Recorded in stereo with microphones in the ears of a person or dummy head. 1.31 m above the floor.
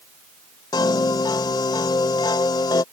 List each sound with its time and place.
0.7 s a piano: 25° left (ahead or behind)